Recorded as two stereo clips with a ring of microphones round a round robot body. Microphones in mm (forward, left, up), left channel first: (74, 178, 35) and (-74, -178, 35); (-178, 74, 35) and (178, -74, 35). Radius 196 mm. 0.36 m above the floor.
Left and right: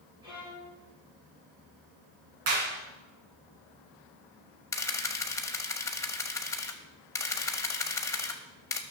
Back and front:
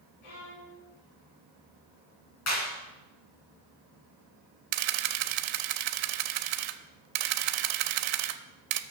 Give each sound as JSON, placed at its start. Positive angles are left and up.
{"t": 0.2, "sound": "a violin", "azimuth_deg": 170, "distance_m": 4.5}
{"t": 2.5, "sound": "a clap", "azimuth_deg": -150, "distance_m": 4.0}
{"t": 4.7, "sound": "a camera shutter", "azimuth_deg": -15, "distance_m": 0.7}